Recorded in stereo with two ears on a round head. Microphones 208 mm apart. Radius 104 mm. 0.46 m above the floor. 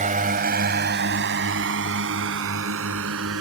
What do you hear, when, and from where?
0.0 s a drone: 35° right (ahead or behind); by 3.4 s 70° right (ahead or behind)